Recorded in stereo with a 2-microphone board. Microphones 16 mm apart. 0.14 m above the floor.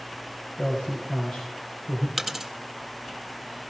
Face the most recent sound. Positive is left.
turn(degrees=-5)  # may be behind; listen again after turning